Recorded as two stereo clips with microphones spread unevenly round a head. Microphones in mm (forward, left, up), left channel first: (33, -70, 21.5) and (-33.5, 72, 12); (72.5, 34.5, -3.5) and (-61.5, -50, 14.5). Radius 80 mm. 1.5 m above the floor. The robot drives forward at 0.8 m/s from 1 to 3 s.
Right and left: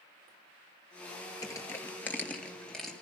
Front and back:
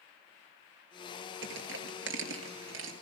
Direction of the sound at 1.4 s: 135° right.